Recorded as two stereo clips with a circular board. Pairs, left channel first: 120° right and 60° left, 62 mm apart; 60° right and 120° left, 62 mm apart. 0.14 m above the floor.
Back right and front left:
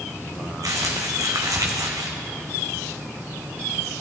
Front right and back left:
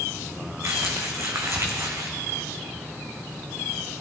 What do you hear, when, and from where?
0.6 s crumpling: 80° left, 1.7 m